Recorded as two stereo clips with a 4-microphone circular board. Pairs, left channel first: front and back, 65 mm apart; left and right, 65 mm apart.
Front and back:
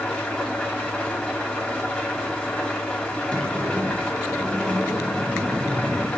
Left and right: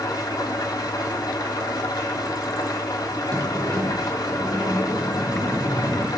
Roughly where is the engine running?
Left.